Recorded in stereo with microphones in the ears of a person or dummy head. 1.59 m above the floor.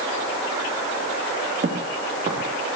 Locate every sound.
1.6 s footsteps: 40° right (ahead or behind), 4.5 m